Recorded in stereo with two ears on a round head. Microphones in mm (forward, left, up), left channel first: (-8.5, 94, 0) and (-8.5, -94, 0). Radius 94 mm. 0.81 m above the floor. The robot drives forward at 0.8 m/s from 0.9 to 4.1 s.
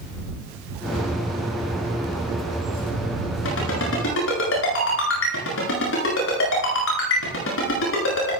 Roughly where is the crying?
No crying in this recording.